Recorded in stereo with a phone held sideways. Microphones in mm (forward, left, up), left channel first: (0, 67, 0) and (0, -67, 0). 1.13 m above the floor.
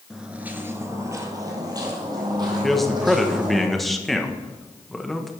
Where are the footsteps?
5° right (ahead or behind), 1.1 m; by 3.6 s 30° right (ahead or behind), 4 m.